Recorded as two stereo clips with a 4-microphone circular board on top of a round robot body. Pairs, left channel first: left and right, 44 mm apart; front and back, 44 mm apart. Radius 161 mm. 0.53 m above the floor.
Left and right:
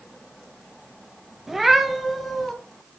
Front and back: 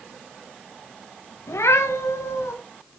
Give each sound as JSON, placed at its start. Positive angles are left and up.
{"t": 1.5, "sound": "a cat meowing", "azimuth_deg": -5, "distance_m": 1.1}